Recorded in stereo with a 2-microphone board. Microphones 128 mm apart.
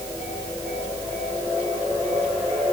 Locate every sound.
Only background noise.